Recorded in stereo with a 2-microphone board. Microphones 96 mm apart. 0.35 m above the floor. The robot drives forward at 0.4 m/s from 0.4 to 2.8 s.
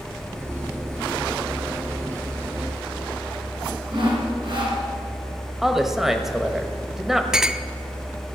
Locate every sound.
3.9 s sawing: 55° right (ahead or behind), 3 m
5.6 s a woman speaking: centre (ahead or behind), 1.2 m
7.3 s a clink: 5° right (ahead or behind), 0.5 m